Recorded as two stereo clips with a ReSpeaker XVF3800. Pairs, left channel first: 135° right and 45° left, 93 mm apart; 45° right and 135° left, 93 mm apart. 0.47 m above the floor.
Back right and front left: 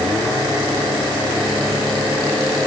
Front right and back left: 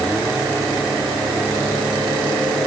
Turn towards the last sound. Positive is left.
No sound to turn to.